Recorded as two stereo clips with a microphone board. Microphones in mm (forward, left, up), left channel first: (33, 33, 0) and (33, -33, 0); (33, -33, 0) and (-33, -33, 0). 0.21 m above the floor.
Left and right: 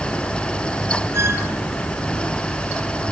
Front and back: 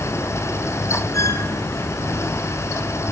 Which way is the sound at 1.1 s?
45° right.